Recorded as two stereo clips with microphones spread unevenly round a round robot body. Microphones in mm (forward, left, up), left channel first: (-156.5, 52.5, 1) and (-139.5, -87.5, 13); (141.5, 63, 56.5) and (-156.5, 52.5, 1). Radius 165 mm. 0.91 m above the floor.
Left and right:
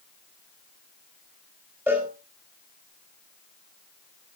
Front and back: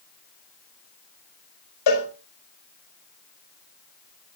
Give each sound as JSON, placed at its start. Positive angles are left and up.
{"t": 1.9, "sound": "a cowbell", "azimuth_deg": 0, "distance_m": 4.5}